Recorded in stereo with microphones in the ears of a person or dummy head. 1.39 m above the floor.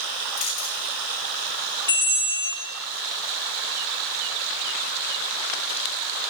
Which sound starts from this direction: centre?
A bell, at 1.9 s.